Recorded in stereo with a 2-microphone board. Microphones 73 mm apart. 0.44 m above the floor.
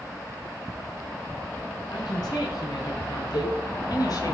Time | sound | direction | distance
1.9 | a woman speaking | 65° left (ahead or behind) | 4 m
3.3 | a cowbell | 65° left (ahead or behind) | 6 m